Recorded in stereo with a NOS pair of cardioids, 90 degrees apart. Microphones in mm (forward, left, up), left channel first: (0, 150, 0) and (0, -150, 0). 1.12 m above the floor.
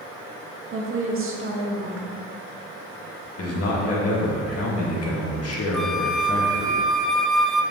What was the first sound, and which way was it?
A woman speaking, 45° right.